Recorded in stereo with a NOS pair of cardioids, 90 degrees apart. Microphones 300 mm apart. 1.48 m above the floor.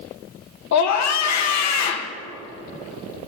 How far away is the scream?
About 1.2 m.